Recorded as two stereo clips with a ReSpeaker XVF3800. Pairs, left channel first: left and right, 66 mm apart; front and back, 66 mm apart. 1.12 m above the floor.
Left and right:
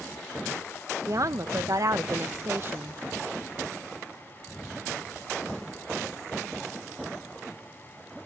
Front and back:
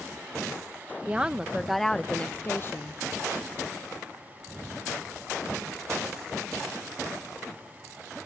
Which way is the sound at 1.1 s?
110° right.